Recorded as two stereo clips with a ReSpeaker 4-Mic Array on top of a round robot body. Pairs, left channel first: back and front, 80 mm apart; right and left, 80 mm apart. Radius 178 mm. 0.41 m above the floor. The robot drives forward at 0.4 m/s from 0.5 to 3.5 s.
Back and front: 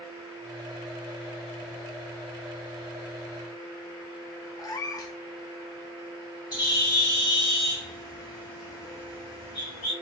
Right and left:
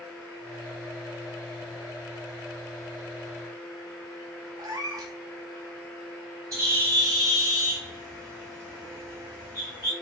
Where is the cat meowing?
135° left, 0.6 m.